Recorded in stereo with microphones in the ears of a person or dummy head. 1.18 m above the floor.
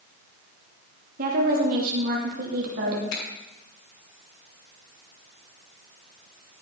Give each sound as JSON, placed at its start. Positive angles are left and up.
{"t": 1.2, "sound": "a woman speaking", "side_deg": -45, "distance_m": 2.5}
{"t": 3.1, "sound": "a finger snap", "side_deg": 75, "distance_m": 4.0}